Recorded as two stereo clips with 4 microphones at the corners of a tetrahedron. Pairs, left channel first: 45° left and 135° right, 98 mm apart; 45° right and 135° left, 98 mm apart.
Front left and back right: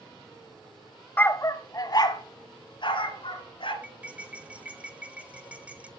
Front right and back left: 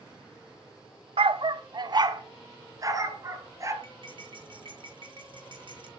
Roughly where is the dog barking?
Behind left.